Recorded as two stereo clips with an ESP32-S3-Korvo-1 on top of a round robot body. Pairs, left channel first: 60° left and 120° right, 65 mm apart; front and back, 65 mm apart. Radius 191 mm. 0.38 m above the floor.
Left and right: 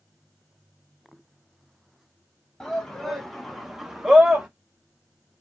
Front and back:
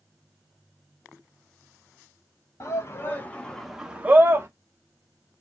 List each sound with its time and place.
2.6 s a shout: 20° right, 1.7 m; by 4.5 s 165° left, 1.4 m